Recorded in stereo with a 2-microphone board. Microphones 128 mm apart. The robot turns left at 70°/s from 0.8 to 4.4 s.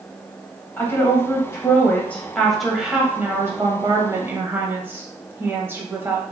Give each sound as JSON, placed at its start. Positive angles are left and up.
{"t": 0.8, "sound": "a woman speaking", "side_deg": 15, "distance_m": 1.0}